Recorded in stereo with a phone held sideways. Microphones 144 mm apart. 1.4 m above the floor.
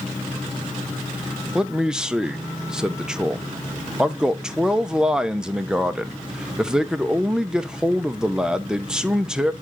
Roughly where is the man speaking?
Centre.